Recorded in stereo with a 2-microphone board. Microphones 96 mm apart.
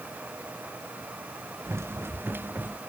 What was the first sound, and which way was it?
Running footsteps, 30° right (ahead or behind).